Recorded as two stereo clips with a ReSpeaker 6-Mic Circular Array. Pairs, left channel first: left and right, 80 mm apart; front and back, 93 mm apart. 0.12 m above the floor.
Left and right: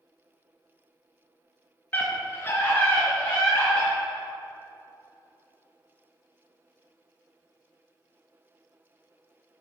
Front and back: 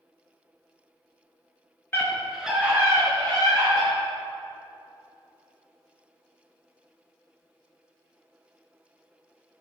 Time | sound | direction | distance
1.9 | a scream | 45° left | 1.2 m